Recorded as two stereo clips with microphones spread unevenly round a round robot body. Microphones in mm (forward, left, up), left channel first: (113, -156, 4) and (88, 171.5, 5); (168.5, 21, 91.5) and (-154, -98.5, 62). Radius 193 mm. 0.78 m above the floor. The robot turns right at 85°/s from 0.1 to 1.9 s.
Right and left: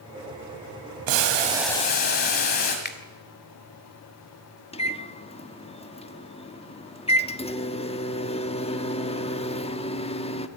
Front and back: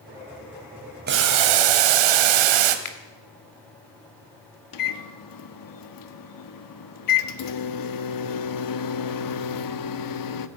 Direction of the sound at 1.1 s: 135° left.